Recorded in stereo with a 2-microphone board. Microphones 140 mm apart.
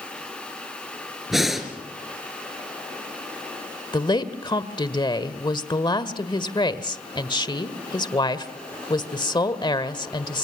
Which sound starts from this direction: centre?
Breathing, at 1.3 s.